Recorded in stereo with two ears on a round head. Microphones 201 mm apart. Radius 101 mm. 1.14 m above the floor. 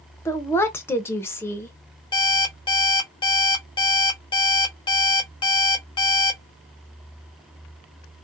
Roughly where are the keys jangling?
No keys jangling in this recording.